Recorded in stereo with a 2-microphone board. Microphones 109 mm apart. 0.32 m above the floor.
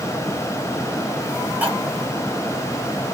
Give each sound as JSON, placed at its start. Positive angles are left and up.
{"t": 1.6, "sound": "cutlery clinking", "side_deg": -15, "distance_m": 0.9}